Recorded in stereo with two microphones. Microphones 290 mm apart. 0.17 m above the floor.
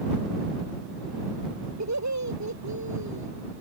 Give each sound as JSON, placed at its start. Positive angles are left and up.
{"t": 1.8, "sound": "laughter", "side_deg": -70}